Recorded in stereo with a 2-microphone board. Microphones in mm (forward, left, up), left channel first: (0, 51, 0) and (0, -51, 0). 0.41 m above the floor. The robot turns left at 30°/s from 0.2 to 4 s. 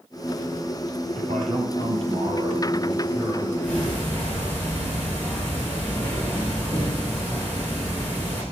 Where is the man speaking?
95° right, 9.5 m; by 3.5 s 170° right, 9.5 m.